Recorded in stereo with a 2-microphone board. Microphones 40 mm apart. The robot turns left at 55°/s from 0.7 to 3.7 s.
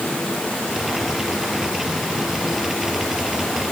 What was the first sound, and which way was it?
Only background noise.